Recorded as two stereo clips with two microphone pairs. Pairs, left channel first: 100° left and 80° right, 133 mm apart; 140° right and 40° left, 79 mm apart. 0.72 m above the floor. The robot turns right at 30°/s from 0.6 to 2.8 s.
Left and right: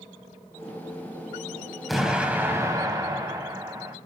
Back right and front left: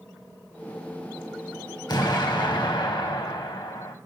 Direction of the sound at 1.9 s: 170° right.